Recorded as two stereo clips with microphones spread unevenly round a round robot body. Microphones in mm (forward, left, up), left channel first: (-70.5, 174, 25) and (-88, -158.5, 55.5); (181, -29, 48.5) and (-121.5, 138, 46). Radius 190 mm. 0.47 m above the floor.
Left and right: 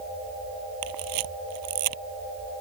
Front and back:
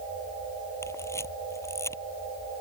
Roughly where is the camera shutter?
Right.